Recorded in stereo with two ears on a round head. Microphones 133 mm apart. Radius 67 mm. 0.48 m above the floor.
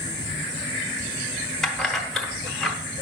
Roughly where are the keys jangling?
Centre.